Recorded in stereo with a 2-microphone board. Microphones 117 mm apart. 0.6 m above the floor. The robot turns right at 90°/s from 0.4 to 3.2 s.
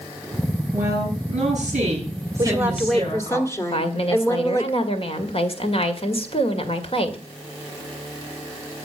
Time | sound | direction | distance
0.7 | a woman speaking | 170° right | 9.5 m
2.4 | a woman speaking | 45° right | 1.8 m
3.7 | a woman speaking | 55° left (ahead or behind) | 2.0 m